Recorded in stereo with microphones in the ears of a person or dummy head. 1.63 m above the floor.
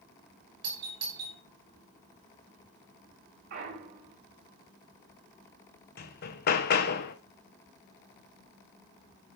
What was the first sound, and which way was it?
A doorbell, 30° right (ahead or behind).